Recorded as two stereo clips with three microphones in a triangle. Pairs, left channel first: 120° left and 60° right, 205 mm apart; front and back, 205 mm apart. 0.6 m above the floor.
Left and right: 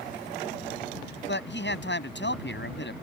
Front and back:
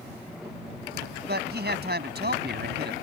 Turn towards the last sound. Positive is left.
turn(degrees=145)